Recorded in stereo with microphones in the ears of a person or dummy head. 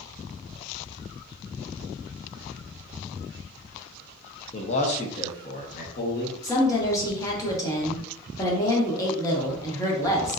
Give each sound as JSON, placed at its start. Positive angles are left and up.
{"t": 4.5, "sound": "a man speaking", "side_deg": 30, "distance_m": 0.7}
{"t": 6.4, "sound": "a woman speaking", "side_deg": 15, "distance_m": 1.3}